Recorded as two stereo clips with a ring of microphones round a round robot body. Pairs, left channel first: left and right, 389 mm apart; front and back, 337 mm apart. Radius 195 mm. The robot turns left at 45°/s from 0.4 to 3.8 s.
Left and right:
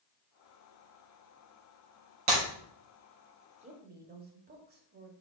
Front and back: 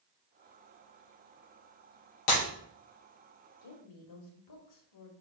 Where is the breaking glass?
40° right, 4 m; by 2.4 s 45° right, 4 m.